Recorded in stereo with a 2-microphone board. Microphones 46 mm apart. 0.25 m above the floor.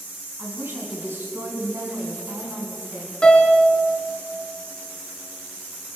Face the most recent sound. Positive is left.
turn(degrees=20)  # may be behind; listen again after turning